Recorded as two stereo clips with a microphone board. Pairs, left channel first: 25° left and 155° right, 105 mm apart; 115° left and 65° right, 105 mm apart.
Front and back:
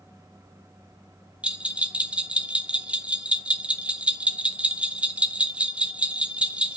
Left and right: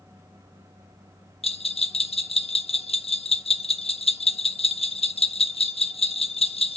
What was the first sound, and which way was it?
A bell, 125° left.